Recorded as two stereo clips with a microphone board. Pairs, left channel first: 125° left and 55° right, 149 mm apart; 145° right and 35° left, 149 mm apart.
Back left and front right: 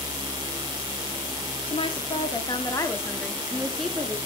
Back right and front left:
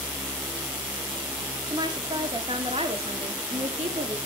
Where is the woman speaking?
90° left, 1.7 m; by 4.2 s 25° left, 1.6 m.